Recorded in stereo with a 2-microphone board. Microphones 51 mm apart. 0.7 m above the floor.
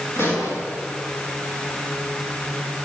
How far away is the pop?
About 9 m.